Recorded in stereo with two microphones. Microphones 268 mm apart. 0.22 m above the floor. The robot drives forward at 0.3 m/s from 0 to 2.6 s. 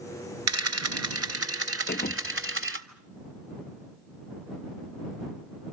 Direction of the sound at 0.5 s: 75° right (ahead or behind).